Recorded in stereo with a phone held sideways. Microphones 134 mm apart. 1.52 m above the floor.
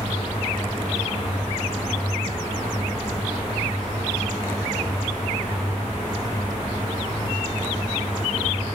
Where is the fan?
15° left (ahead or behind), 2.5 m.